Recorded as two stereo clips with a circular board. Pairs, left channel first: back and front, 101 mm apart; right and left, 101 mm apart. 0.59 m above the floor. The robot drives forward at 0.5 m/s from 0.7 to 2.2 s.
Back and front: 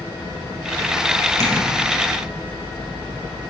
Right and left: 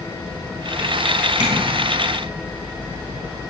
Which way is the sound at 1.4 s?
60° left.